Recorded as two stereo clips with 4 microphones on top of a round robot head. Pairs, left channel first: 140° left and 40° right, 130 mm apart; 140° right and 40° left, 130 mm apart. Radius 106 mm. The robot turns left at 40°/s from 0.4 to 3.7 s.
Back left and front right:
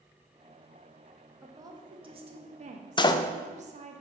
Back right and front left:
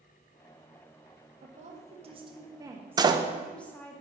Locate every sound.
1.4 s a woman speaking: 30° left, 1.1 m; by 4.0 s 65° right, 1.1 m
3.0 s a door slam: 95° left, 0.5 m; by 3.2 s 85° left, 0.5 m